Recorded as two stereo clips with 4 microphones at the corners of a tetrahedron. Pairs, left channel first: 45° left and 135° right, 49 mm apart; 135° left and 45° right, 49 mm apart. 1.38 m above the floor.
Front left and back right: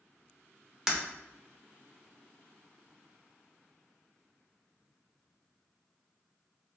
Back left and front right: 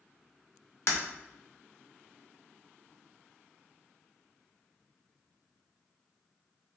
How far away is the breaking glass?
About 1.0 m.